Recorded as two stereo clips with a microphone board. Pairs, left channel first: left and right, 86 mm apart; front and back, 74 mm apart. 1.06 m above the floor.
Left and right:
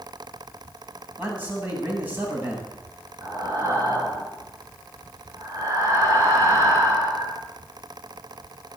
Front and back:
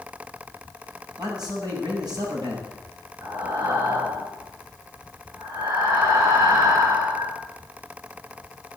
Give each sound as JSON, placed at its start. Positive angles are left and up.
{"t": 1.2, "sound": "a man speaking", "azimuth_deg": -160, "distance_m": 7.5}
{"t": 3.2, "sound": "breathing", "azimuth_deg": -140, "distance_m": 6.5}